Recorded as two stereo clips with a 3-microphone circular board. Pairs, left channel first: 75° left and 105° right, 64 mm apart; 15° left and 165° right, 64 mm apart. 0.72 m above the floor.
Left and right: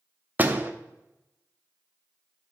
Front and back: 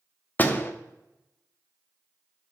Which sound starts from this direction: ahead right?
A door slam, at 0.4 s.